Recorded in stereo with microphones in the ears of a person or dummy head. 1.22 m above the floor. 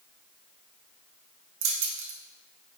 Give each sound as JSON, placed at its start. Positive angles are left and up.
{"t": 1.6, "sound": "keys jangling", "side_deg": -70, "distance_m": 0.8}